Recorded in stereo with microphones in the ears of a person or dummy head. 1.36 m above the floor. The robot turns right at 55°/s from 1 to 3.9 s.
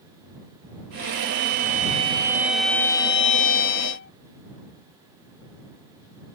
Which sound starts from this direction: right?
A violin, at 1.1 s.